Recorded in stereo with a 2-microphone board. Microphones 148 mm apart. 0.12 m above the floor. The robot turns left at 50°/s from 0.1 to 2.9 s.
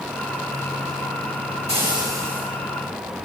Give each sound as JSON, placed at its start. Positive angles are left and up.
{"t": 1.7, "sound": "frying", "azimuth_deg": -135, "distance_m": 8.5}